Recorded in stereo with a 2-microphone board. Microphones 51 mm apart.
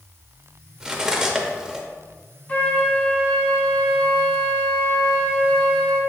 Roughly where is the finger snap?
No finger snap in this recording.